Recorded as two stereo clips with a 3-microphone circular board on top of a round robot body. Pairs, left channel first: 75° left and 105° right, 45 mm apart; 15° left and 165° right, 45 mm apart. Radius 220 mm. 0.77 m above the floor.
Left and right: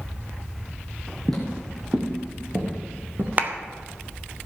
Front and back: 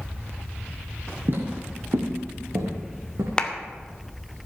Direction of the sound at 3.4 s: 55° right.